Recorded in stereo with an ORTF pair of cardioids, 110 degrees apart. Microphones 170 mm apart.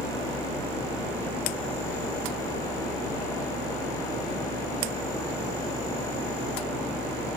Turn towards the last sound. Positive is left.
turn(degrees=20)